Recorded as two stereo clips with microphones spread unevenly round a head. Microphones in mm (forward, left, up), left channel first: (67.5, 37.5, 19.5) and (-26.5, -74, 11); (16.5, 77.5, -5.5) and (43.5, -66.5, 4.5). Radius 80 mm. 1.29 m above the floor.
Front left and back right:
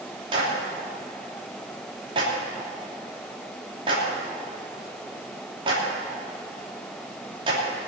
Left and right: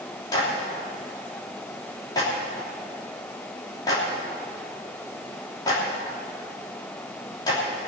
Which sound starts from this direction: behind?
A clap, at 0.3 s.